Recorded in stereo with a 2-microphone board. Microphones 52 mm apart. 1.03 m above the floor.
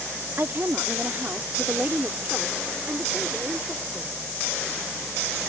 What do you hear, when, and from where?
0.4 s a woman speaking: 50° right (ahead or behind); by 4.2 s 15° right (ahead or behind)